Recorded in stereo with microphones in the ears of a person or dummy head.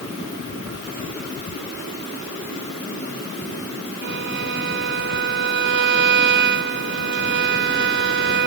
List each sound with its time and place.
4.0 s a violin: 55° right (ahead or behind)